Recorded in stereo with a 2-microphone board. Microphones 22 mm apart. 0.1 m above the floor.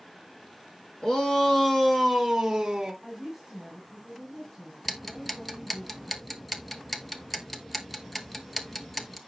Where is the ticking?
5° left (ahead or behind), 0.9 m.